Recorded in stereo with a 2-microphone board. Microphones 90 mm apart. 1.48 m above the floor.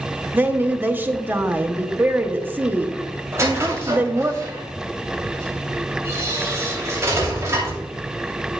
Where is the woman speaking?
20° right (ahead or behind), 1.0 m.